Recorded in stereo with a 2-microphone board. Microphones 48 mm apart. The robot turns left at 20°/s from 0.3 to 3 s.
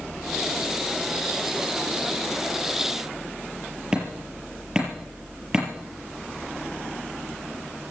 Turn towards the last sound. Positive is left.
turn(degrees=-10)  # may be behind; listen again after turning